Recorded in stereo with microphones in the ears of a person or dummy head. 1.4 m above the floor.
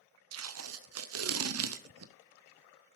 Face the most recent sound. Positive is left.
turn(degrees=-80)